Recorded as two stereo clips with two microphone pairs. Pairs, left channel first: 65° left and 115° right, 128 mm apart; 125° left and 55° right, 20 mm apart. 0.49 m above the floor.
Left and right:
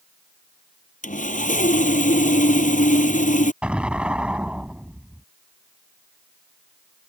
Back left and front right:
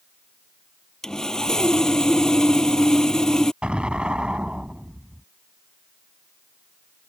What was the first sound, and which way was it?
Sawing, 65° left.